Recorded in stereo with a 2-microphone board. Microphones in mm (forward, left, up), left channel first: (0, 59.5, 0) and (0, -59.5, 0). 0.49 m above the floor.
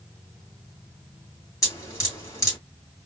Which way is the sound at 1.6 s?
30° left (ahead or behind).